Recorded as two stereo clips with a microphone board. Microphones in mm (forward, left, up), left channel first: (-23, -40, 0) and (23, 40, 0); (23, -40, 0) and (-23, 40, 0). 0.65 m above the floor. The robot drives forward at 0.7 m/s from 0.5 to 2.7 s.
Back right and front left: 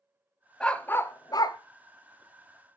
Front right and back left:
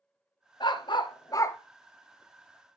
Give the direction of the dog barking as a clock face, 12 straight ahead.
1 o'clock.